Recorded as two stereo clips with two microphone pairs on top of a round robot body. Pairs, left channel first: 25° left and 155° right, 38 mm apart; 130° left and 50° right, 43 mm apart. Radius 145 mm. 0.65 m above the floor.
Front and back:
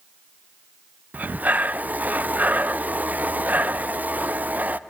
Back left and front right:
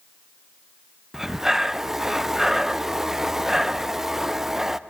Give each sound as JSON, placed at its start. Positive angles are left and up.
{"t": 1.1, "sound": "breathing", "azimuth_deg": -120, "distance_m": 0.5}